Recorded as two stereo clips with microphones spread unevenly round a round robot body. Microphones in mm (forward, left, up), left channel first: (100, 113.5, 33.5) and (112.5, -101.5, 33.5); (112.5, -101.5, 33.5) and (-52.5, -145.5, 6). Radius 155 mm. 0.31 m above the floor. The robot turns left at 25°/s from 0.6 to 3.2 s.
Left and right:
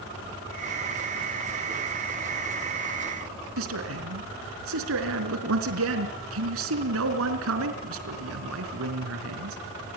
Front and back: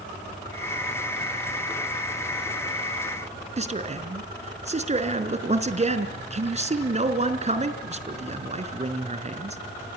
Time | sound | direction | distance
3.6 | a man speaking | 120° right | 4 m